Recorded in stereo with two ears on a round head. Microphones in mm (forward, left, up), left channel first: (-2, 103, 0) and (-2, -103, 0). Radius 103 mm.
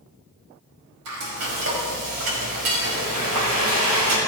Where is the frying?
75° right (ahead or behind), 5 m.